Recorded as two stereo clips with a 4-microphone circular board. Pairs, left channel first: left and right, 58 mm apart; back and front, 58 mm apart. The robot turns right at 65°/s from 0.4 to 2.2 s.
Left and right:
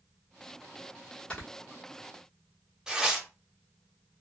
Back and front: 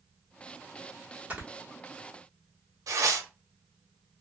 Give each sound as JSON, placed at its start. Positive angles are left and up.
{"t": 1.3, "sound": "snoring", "azimuth_deg": 35, "distance_m": 1.1}
{"t": 2.9, "sound": "tearing paper", "azimuth_deg": -10, "distance_m": 0.7}